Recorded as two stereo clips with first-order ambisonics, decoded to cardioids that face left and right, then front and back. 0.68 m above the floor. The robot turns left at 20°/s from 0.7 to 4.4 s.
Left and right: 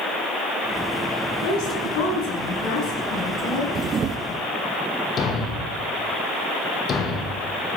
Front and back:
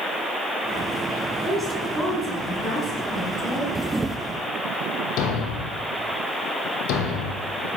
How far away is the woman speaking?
About 7 m.